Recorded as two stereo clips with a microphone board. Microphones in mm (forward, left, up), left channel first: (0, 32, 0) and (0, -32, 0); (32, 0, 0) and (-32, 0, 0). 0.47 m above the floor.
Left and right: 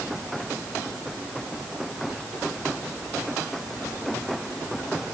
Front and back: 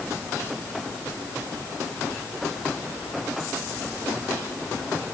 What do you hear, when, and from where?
Only background noise.